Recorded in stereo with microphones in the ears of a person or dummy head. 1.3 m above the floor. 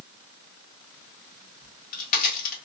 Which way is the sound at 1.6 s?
45° left (ahead or behind).